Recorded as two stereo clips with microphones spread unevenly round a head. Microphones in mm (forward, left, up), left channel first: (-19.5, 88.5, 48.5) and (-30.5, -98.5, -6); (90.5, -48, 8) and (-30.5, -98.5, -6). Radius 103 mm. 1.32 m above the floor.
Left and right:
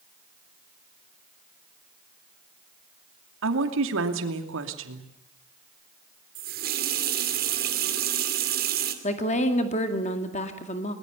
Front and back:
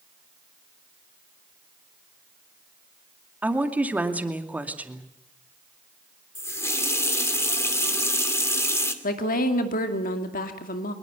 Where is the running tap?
45° right, 2.5 m.